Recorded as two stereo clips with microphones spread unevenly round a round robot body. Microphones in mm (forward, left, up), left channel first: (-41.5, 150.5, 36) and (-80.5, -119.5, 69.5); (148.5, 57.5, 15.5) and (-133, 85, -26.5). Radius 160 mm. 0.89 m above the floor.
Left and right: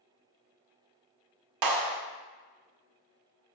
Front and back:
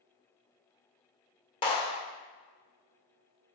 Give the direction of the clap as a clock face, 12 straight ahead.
3 o'clock.